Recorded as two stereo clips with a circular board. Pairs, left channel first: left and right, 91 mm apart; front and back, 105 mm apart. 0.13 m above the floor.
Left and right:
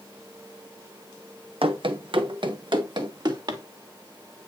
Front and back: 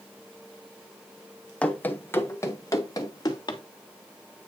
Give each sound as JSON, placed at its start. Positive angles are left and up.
{"t": 1.6, "sound": "running footsteps", "azimuth_deg": -80, "distance_m": 1.5}